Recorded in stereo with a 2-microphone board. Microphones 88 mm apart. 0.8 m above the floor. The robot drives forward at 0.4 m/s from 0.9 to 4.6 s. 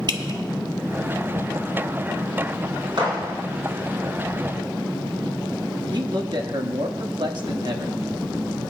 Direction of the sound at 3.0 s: 70° right (ahead or behind).